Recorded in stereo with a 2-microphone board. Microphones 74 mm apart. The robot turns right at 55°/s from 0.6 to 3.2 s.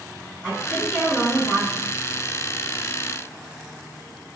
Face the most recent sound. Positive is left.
turn(degrees=120)